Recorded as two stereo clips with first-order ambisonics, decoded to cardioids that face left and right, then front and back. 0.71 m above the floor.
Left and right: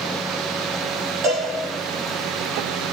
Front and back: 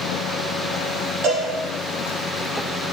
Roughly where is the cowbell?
Behind right.